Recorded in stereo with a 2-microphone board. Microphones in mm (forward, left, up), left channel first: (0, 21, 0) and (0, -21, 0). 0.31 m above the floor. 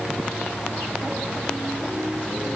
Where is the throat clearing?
I don't hear throat clearing.